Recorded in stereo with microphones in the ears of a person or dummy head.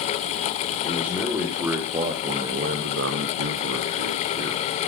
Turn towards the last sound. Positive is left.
turn(degrees=-40)  # may be behind; listen again after turning